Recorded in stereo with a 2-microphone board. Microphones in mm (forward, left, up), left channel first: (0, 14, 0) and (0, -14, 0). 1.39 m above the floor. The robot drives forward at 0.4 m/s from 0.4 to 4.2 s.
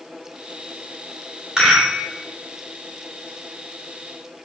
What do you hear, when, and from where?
1.6 s a rattle: 25° right (ahead or behind), 1.8 m